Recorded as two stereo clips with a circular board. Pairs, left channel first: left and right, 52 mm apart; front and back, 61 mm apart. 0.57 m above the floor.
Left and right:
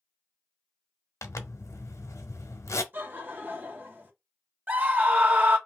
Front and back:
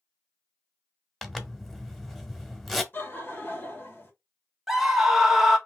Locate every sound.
1.2 s a zipper: 85° left, 0.9 m
2.9 s laughter: 45° right, 1.9 m
4.7 s a scream: 100° right, 1.3 m